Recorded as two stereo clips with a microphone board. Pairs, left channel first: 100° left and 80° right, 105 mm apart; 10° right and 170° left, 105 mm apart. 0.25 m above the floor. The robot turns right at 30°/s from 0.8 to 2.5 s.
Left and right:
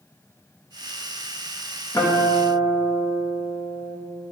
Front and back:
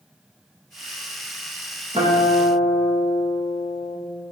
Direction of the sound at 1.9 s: 160° left.